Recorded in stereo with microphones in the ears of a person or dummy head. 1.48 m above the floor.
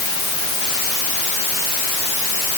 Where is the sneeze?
No sneeze in this recording.